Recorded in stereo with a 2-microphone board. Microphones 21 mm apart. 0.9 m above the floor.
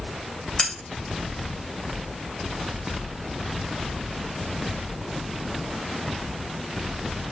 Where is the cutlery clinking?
30° left (ahead or behind), 2 m.